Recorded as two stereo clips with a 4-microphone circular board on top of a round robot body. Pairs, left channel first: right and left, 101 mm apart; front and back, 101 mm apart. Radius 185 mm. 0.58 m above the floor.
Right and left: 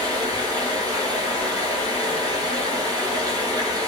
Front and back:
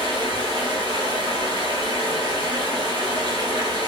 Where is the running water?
140° left, 2 m.